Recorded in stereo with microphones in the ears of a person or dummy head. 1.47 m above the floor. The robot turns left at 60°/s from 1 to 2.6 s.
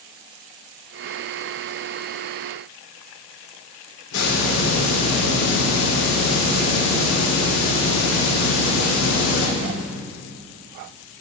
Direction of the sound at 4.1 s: 70° left (ahead or behind).